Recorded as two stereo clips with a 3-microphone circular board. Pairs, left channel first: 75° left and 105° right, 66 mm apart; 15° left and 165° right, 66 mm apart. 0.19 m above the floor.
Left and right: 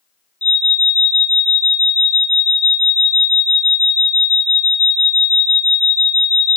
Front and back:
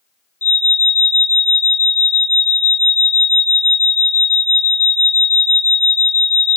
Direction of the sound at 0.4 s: 35° left.